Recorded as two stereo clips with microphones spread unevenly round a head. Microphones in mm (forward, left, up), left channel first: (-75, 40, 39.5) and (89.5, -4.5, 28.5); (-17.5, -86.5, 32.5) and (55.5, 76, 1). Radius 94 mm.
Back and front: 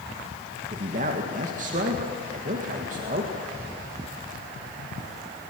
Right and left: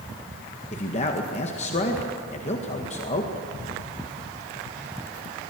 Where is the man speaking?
65° right, 1.9 m.